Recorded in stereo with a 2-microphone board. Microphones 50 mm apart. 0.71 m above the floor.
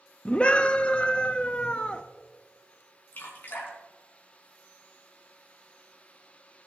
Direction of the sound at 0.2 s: 25° left (ahead or behind).